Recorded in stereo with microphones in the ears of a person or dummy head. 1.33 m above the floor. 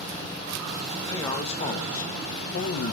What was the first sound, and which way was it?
A man speaking, 25° left (ahead or behind).